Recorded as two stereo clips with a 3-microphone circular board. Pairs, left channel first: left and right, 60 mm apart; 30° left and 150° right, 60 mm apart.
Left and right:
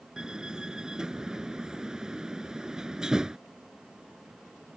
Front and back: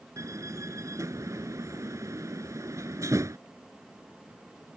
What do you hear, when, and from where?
0.2 s a door slam: 170° right